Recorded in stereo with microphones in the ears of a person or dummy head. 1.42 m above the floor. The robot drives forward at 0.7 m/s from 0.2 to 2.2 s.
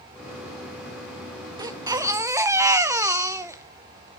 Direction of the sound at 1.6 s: 25° right (ahead or behind).